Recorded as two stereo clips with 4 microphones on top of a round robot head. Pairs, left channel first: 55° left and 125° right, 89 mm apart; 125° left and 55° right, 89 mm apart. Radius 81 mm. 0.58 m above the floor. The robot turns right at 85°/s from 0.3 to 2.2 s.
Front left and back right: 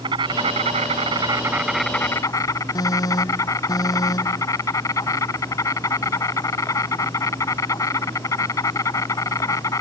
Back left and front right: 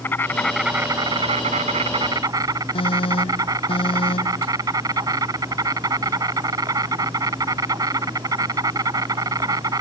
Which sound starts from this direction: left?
An alarm, at 2.8 s.